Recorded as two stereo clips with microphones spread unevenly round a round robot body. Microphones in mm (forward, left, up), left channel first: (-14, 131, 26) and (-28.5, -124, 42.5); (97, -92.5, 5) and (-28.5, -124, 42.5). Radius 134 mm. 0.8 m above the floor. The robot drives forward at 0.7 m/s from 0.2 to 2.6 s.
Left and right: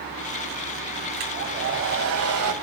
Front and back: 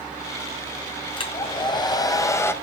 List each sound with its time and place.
1.2 s a hair dryer: 40° right, 2 m; by 2.5 s 60° right, 1.5 m